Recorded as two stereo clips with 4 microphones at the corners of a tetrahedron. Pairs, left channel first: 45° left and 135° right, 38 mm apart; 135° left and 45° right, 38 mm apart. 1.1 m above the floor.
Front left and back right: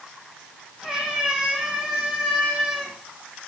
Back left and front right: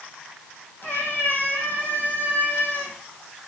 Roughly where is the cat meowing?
Behind left.